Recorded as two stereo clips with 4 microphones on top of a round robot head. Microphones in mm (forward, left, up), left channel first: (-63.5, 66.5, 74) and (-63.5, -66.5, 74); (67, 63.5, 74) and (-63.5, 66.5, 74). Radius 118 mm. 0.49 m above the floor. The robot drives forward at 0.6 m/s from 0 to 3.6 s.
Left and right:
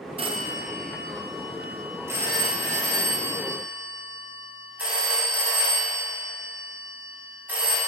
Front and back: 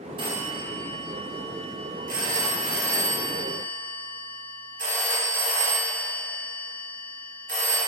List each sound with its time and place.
0.2 s a phone ringing: 135° right, 0.8 m; by 7.8 s 170° right, 2.5 m